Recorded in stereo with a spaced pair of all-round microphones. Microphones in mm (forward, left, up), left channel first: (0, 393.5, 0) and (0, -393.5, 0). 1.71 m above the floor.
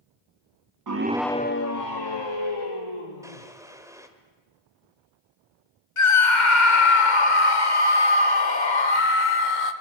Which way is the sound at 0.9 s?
30° right (ahead or behind).